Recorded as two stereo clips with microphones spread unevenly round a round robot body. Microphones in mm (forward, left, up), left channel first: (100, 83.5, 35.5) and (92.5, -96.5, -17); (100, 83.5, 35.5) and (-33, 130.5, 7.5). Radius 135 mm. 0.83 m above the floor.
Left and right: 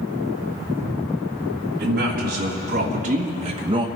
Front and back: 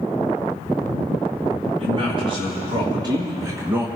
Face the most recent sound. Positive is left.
turn(degrees=-135)